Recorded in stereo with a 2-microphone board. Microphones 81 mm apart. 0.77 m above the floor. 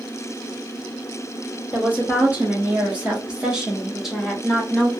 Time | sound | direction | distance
1.7 | a woman speaking | 20° right (ahead or behind) | 1.4 m